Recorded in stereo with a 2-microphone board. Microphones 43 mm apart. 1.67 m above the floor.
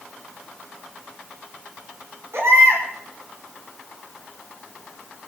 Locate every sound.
2.3 s a baby crying: 80° right, 6 m